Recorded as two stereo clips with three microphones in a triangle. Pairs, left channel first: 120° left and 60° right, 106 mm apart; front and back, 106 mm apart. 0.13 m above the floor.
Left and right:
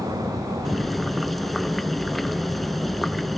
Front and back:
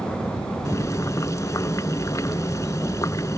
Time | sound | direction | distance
0.7 | boiling | 30° left | ?